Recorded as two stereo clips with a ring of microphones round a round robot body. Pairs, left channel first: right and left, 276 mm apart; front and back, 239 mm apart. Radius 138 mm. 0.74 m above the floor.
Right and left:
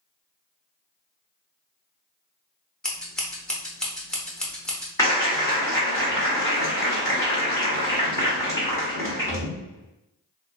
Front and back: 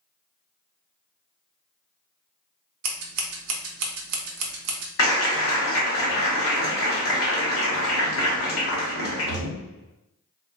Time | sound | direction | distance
2.8 | scissors | 175° right | 0.6 m
5.0 | a clap | 10° right | 1.2 m